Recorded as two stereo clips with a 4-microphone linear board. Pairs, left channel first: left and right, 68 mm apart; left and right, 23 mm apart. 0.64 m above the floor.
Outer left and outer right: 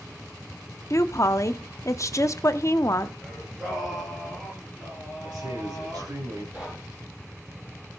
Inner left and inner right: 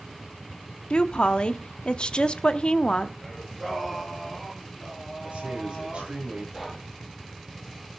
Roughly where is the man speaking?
Right.